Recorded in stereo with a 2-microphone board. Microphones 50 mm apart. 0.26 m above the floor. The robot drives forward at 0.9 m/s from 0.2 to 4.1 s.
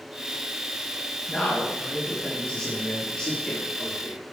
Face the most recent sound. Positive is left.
turn(degrees=15)  # may be behind; listen again after turning